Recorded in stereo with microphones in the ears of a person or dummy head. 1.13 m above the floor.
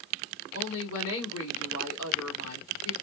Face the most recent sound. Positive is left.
turn(degrees=70)  # may be behind; listen again after turning